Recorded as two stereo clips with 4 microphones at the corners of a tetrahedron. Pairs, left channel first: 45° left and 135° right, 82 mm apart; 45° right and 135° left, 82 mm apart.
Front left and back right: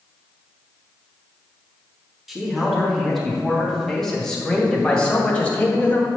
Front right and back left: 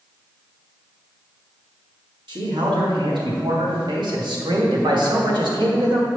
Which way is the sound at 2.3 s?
140° left.